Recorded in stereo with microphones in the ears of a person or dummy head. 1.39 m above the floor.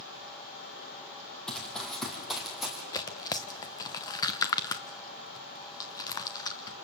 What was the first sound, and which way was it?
Running footsteps, 5° left (ahead or behind).